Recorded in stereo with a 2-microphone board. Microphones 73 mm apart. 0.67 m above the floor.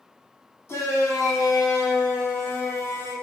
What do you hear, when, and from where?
0.7 s a shout: 40° left (ahead or behind), 1.2 m; by 3.1 s 50° left (ahead or behind), 1.9 m